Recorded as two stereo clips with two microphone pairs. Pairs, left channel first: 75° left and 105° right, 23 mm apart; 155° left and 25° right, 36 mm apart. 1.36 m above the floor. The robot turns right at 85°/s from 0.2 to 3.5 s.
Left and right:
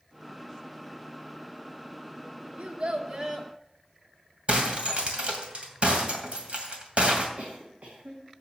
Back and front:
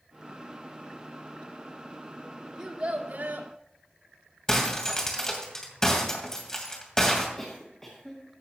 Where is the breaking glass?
135° right, 2.5 m.